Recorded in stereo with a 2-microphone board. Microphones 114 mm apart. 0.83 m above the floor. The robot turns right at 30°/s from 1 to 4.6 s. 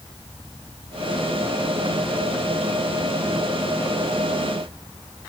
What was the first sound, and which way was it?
Only background noise.